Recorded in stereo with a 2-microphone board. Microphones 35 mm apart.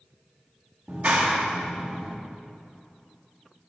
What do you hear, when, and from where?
0.9 s a clap: 45° right (ahead or behind), 1.1 m